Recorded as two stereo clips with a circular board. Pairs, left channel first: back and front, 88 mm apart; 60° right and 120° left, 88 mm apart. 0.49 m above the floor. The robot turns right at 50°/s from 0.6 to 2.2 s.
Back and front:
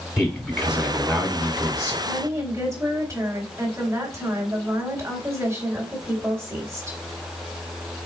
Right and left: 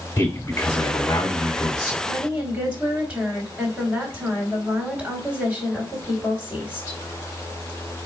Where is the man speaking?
85° right, 1.8 m; by 1.9 s 20° right, 1.8 m.